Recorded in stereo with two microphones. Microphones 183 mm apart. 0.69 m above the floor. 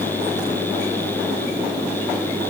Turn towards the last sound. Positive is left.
No sound to turn to.